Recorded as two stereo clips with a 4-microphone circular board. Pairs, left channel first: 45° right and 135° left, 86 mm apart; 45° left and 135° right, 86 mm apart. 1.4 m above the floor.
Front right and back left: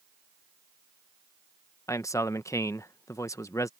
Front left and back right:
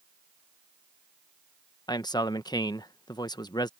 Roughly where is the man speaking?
Ahead.